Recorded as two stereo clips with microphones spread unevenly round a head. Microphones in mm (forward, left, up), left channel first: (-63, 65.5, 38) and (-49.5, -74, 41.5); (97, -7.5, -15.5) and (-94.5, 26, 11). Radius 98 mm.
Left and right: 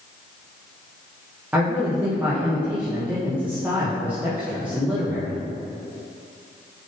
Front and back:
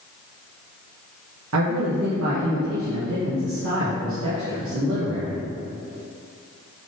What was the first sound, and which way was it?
A man speaking, 165° right.